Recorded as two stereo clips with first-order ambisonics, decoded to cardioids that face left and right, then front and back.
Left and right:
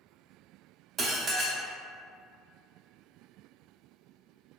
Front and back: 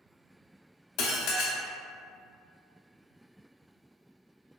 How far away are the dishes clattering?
About 0.6 m.